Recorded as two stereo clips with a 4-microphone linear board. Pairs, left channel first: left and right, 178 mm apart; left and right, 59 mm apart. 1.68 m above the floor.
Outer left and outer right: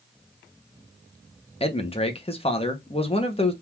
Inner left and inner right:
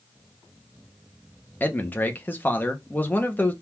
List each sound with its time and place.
1.6 s a man speaking: 35° left (ahead or behind), 1.2 m